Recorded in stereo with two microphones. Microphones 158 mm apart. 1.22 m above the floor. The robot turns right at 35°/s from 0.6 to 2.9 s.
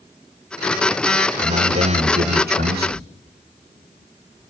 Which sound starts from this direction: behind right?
A man speaking, at 1.4 s.